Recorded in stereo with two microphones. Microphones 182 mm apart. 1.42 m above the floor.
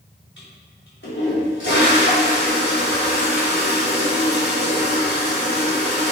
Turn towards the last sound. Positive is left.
turn(degrees=90)